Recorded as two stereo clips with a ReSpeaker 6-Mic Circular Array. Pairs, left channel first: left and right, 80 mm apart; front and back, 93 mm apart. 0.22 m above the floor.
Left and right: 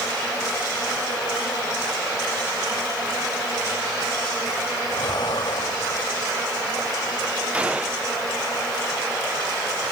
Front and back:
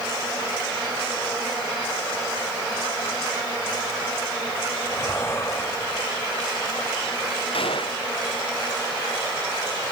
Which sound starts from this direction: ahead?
A gunshot, at 7.5 s.